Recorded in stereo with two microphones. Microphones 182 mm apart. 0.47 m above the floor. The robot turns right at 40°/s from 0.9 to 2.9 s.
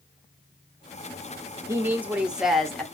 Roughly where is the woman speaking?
Centre.